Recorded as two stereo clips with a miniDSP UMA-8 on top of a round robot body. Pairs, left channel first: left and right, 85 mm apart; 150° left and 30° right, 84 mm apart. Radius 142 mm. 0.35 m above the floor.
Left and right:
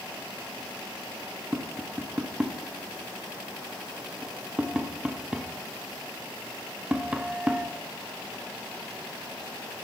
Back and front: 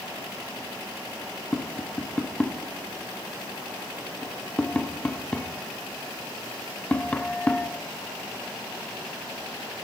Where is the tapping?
155° right, 1.4 m.